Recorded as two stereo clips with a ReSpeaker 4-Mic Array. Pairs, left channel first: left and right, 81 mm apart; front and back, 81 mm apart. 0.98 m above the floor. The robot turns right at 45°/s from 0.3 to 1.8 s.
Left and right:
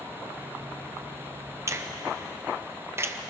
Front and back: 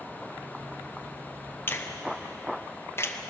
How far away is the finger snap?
About 0.7 m.